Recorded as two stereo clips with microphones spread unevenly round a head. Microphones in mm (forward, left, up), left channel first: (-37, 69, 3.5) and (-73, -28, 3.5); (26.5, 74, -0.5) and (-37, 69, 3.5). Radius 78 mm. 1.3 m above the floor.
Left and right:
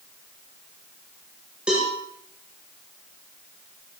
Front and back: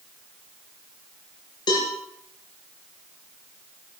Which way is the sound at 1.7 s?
25° right.